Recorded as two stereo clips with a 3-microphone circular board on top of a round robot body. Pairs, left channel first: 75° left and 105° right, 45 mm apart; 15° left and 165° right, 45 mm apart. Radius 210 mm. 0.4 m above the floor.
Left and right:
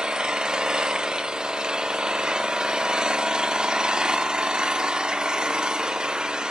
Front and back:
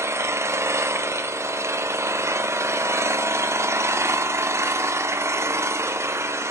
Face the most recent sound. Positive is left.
turn(degrees=180)